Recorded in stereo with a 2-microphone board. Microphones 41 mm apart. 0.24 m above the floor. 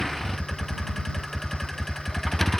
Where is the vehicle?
5° left (ahead or behind).